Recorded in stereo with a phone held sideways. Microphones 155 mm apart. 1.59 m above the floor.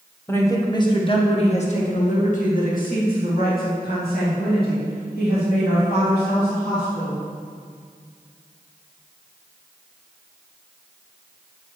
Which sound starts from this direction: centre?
A woman speaking, at 0.3 s.